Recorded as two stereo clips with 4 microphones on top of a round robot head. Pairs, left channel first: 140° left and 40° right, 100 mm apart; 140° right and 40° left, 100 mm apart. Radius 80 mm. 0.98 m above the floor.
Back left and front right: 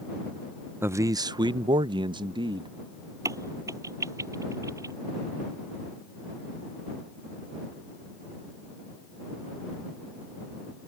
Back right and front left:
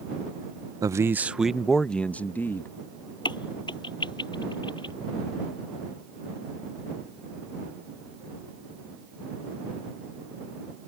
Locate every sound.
0.8 s a man speaking: 15° left; by 2.7 s 75° right
3.2 s a crack: 100° right